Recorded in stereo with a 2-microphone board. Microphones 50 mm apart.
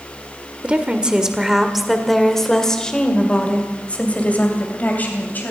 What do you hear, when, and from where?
0.6 s a woman speaking: 25° right (ahead or behind), 1.7 m; by 5.5 s 35° left (ahead or behind), 3 m